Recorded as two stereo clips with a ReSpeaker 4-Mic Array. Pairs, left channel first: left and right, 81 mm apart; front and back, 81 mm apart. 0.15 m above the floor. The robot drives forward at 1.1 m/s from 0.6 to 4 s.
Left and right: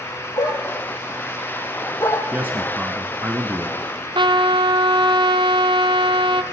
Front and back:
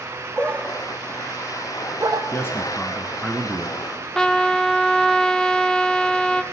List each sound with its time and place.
0.4 s a dog barking: 75° left, 1.4 m; by 2.2 s 140° left, 2.0 m
2.3 s a man speaking: 35° right, 1.5 m; by 3.8 s 140° right, 1.5 m
4.2 s a trumpet: 80° right, 0.8 m